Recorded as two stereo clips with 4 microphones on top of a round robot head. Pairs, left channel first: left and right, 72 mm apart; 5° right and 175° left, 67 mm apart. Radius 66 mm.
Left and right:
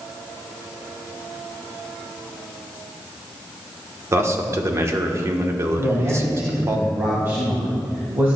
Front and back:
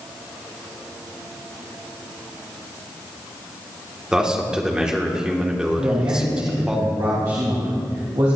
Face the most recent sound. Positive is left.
turn(degrees=-145)